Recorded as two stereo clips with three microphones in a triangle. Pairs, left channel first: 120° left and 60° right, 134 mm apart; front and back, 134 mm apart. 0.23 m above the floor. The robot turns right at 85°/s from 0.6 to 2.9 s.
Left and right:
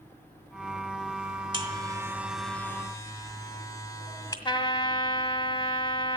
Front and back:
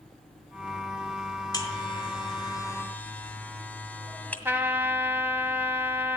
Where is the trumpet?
115° left, 1.1 m.